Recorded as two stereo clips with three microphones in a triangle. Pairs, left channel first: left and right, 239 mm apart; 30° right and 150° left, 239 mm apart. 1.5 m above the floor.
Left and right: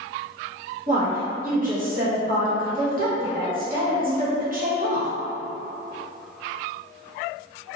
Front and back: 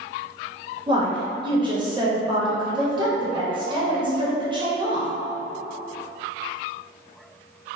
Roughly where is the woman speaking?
Behind right.